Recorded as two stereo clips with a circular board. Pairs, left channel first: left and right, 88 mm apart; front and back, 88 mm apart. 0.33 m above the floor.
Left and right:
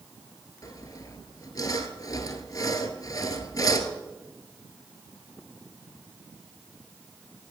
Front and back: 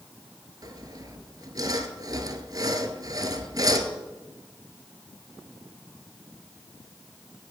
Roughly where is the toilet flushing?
I don't hear a toilet flushing.